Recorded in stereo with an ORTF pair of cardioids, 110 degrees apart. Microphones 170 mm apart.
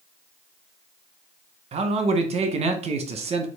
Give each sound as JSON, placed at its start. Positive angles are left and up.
{"t": 1.7, "sound": "a man speaking", "azimuth_deg": -40, "distance_m": 0.9}